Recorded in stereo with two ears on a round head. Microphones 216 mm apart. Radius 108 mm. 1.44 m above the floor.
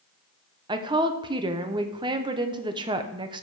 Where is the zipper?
I don't hear a zipper.